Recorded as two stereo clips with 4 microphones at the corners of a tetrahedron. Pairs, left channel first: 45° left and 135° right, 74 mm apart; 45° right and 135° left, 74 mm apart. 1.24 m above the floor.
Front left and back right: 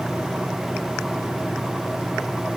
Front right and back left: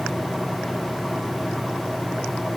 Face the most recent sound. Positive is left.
No sound to turn to.